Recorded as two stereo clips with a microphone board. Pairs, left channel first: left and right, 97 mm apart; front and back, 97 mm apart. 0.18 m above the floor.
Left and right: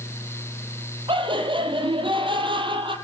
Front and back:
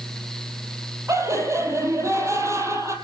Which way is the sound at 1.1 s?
120° right.